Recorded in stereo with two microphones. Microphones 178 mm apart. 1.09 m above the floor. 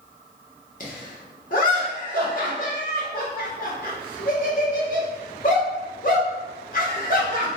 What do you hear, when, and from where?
0.8 s laughter: 50° left (ahead or behind), 1.7 m